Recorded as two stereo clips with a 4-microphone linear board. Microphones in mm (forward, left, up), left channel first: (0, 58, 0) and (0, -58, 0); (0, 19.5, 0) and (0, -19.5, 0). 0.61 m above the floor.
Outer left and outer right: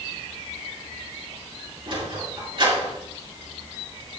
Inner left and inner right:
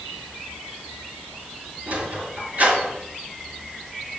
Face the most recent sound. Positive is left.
turn(degrees=-45)  # may be behind; listen again after turning